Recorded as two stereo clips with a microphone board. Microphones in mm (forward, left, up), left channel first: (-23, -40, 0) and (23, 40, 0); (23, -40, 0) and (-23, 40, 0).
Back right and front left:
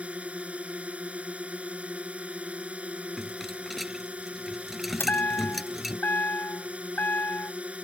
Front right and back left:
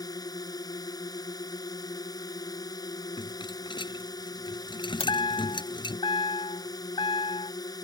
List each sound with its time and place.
0.0 s a drone: 15° right
3.2 s a rattle: 30° right
5.0 s a chime: 55° right